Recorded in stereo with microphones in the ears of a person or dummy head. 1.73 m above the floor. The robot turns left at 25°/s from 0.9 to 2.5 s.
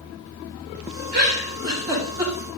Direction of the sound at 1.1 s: 40° right (ahead or behind).